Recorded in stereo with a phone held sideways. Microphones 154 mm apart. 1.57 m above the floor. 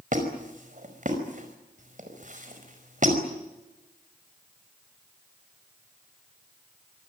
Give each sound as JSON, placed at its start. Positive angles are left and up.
{"t": 0.1, "sound": "a squeak", "side_deg": -55, "distance_m": 5.0}